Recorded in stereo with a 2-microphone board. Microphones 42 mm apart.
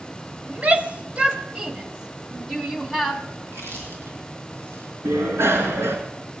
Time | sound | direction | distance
0.5 | a shout | 35° right (ahead or behind) | 1.3 m
3.4 | chewing | 75° right (ahead or behind) | 5 m
5.0 | a bicycle bell | 75° right (ahead or behind) | 3 m